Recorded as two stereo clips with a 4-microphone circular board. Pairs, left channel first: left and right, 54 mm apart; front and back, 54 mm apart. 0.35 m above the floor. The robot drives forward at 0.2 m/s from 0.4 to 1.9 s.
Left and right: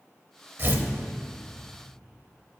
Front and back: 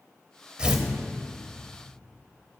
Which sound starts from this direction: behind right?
Tearing paper, at 0.6 s.